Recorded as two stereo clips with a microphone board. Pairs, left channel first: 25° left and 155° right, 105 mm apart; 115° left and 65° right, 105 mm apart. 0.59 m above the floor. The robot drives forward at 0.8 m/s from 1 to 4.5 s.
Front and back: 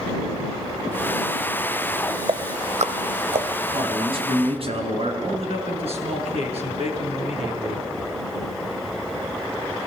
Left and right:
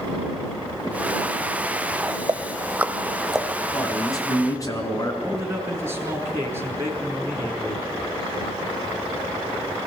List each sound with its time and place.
2.3 s ticking: 120° right, 0.6 m; by 3.5 s 160° right, 1.4 m
3.7 s a man speaking: 170° left, 4.5 m
5.2 s a man speaking: 135° right, 6 m